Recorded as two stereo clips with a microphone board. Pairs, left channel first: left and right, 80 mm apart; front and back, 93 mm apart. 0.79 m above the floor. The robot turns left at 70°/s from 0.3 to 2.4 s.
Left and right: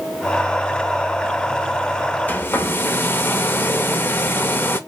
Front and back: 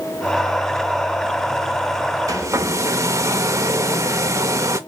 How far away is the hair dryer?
About 0.6 m.